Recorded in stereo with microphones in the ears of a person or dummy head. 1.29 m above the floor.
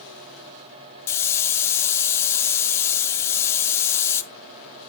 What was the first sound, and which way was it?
A hiss, 10° left (ahead or behind).